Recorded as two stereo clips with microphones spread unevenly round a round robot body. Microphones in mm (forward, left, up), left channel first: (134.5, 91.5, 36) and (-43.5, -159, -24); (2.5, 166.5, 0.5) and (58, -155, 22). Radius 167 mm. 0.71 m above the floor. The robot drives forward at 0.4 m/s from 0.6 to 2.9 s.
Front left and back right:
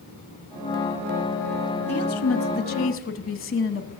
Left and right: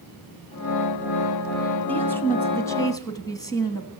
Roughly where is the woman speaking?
Ahead.